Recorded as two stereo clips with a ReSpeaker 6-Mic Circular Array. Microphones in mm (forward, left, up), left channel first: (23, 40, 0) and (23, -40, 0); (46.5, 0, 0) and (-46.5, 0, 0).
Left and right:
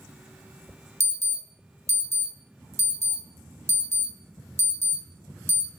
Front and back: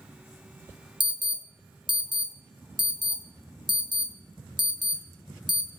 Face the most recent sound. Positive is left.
turn(degrees=-145)